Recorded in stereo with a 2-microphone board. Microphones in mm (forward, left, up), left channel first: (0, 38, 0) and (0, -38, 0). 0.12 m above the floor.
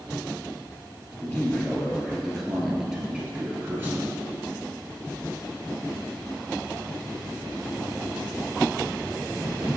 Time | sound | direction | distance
1.2 | a man speaking | 20° left (ahead or behind) | 2.5 m